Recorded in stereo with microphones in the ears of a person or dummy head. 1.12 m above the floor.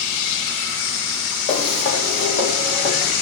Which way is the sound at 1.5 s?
30° left (ahead or behind).